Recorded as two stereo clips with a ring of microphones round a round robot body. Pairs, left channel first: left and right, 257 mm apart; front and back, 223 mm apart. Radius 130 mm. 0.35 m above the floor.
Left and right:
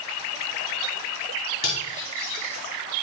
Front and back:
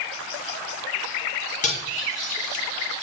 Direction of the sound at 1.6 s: 50° left.